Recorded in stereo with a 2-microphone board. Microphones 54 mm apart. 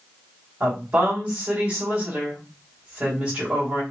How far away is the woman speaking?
About 1.9 m.